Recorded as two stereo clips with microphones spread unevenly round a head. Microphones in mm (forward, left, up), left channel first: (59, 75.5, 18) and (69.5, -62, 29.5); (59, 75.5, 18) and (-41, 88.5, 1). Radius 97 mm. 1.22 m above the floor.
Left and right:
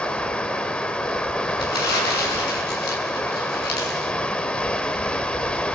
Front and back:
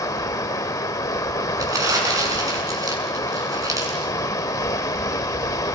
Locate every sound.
0.0 s running water: 10° left, 1.2 m
1.6 s crumpling: 115° left, 7.5 m